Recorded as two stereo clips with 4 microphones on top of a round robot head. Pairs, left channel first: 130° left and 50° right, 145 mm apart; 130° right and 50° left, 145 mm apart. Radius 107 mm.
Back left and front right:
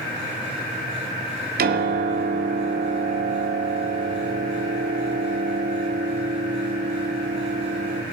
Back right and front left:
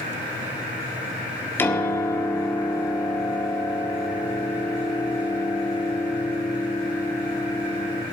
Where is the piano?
55° right, 1.9 m.